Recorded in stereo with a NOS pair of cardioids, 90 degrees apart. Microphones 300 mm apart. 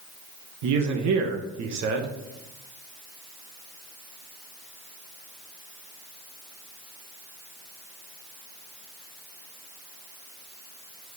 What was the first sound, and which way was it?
A man speaking, 65° right.